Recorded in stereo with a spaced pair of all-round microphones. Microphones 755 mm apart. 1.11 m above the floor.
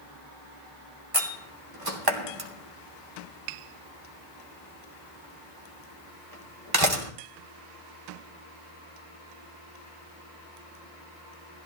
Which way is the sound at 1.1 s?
30° right (ahead or behind).